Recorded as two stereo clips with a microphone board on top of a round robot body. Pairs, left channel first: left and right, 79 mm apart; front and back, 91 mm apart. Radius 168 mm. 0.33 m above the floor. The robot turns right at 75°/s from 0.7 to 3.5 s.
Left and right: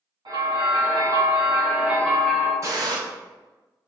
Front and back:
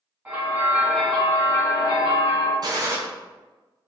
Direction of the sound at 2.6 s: 140° right.